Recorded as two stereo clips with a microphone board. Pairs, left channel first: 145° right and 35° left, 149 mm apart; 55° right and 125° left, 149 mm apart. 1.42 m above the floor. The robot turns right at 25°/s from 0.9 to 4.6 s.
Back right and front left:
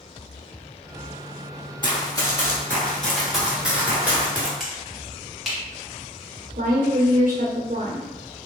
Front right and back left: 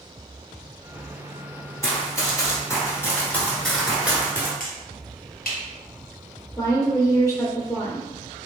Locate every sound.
1.8 s running footsteps: 115° right, 1.7 m; by 4.5 s 105° left, 1.4 m
4.6 s a finger snap: 55° right, 1.2 m
6.6 s a woman speaking: 15° left, 0.6 m